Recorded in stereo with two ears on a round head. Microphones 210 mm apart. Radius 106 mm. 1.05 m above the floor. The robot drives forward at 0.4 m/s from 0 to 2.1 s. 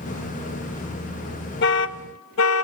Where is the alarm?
45° left (ahead or behind), 0.8 m; by 2.6 s 60° left (ahead or behind), 0.7 m.